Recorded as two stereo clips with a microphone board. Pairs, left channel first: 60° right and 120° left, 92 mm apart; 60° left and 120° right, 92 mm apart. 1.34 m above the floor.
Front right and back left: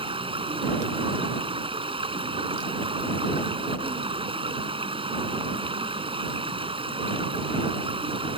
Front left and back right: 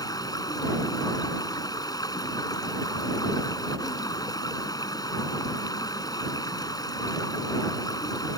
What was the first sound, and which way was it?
Running water, 105° left.